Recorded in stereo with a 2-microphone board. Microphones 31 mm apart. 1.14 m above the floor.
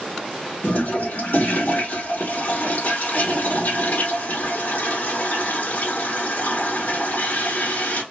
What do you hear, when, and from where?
0.6 s a toilet flushing: 70° left (ahead or behind), 1.1 m